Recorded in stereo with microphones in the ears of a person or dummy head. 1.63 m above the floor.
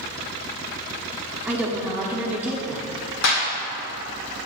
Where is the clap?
65° left (ahead or behind), 1.8 m.